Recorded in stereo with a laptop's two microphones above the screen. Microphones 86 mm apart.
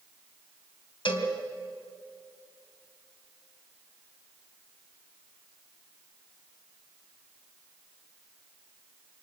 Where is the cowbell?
75° left (ahead or behind), 3.5 m.